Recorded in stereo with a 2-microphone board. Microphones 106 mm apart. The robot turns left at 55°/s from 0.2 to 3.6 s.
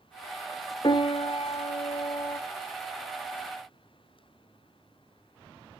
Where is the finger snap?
I don't hear a finger snap.